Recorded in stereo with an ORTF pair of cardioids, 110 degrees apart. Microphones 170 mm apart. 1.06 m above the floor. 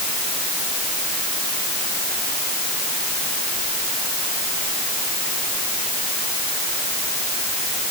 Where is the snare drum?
No snare drum in this recording.